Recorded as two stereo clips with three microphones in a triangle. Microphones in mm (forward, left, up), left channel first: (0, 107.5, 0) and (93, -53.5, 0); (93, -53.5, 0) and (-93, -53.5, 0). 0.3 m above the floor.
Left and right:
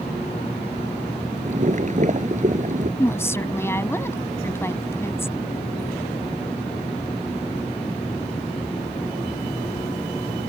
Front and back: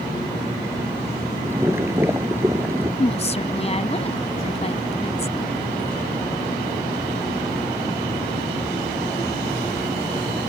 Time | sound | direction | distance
1.4 | boiling | 105° right | ?
3.0 | a woman speaking | 45° left | ?